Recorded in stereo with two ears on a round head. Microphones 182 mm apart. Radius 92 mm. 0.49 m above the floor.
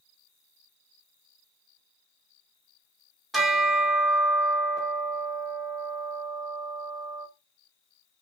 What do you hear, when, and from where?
3.3 s a bell: centre (ahead or behind), 0.8 m